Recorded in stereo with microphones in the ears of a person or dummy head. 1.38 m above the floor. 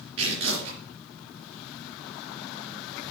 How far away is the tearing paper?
About 3 m.